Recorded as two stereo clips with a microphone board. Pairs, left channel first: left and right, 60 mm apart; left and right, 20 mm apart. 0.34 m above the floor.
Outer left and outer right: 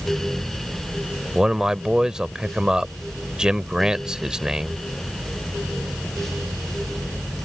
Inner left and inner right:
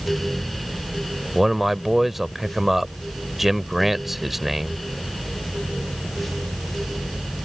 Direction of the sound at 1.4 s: 10° right (ahead or behind).